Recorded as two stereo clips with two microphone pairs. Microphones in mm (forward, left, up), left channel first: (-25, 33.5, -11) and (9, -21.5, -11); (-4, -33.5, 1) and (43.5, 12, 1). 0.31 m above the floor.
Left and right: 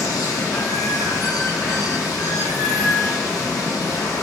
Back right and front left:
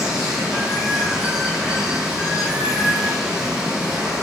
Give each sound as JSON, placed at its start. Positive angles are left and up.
{"t": 0.0, "sound": "running water", "azimuth_deg": 125, "distance_m": 1.3}